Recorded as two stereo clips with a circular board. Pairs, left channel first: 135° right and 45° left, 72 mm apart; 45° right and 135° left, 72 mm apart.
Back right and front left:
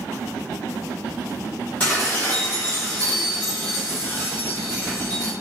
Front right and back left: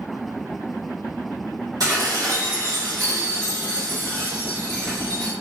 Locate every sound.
1.8 s dishes clattering: 160° left, 1.1 m